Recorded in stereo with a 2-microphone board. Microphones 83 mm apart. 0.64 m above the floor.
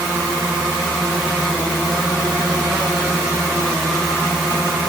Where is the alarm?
No alarm in this recording.